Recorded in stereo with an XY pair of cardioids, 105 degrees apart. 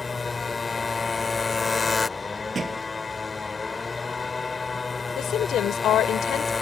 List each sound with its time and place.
0.0 s a motorcycle: 25° left
2.5 s a thud: 30° right
5.2 s a woman speaking: 70° left